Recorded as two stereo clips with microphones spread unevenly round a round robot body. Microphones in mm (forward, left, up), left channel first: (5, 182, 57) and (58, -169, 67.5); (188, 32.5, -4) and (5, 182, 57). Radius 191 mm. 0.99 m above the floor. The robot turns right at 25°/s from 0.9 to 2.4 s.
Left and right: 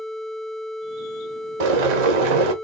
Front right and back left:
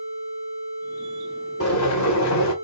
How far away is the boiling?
About 1.0 m.